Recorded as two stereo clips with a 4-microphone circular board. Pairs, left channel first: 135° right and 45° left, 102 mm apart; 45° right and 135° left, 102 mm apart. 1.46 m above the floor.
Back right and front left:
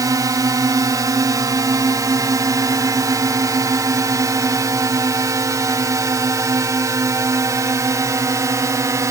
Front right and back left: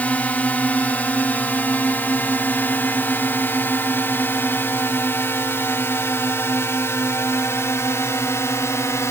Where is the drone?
20° left; by 9.1 s 5° left.